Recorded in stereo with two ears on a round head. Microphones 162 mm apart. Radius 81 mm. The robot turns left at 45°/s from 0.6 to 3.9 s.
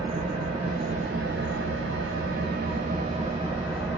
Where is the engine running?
25° right, 1.1 m; by 4.0 s 175° right, 1.1 m.